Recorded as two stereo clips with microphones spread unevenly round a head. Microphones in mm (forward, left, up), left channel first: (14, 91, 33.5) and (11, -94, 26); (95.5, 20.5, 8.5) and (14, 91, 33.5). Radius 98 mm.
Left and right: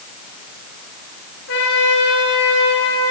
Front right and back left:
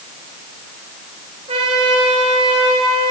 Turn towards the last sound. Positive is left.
turn(degrees=115)